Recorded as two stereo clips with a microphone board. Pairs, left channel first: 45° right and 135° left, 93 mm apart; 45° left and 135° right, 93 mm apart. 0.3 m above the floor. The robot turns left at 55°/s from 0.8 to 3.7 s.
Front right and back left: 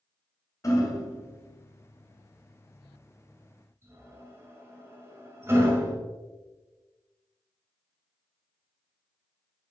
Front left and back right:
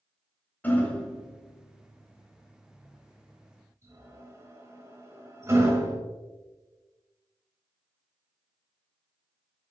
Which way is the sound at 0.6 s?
15° right.